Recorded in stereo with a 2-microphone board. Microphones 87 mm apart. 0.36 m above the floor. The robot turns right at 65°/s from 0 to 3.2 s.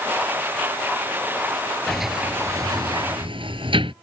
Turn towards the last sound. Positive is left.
turn(degrees=-80)